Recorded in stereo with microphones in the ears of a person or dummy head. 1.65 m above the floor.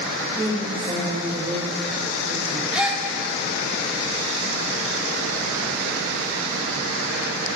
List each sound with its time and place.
0.2 s a woman speaking: 20° right (ahead or behind), 7 m; by 2.6 s 45° right (ahead or behind), 6 m
2.7 s a gasp: centre (ahead or behind), 2.5 m